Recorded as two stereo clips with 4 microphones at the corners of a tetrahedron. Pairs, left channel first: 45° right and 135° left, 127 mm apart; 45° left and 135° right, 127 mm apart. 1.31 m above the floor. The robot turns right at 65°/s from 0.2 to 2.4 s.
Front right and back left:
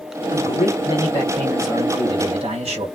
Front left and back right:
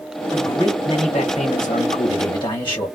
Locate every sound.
0.3 s a man speaking: 40° right, 1.5 m; by 2.9 s 95° left, 1.5 m